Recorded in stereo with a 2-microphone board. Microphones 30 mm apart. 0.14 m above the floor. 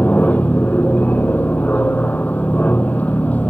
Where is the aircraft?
60° left (ahead or behind).